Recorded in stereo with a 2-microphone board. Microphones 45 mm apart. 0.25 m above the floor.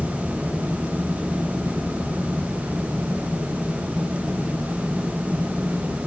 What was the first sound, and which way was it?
Only background noise.